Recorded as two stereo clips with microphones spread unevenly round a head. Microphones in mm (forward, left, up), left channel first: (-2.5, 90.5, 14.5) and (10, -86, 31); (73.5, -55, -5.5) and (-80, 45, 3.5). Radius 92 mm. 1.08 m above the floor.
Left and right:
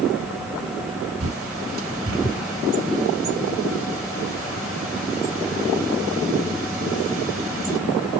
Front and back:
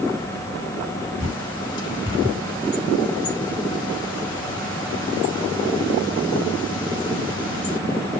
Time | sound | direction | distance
1.2 | a bird | 100° right | 5.5 m